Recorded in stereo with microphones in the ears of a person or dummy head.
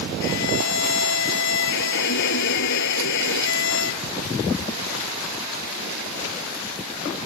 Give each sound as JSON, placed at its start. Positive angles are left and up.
{"t": 0.2, "sound": "a violin", "side_deg": 70}